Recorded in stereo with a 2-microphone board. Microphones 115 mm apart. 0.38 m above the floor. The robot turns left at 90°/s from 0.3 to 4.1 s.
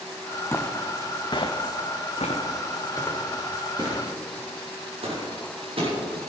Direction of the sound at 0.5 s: 20° left (ahead or behind).